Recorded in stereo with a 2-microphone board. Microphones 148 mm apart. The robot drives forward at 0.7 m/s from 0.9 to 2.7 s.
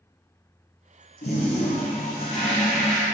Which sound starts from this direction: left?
A toilet flushing, at 1.2 s.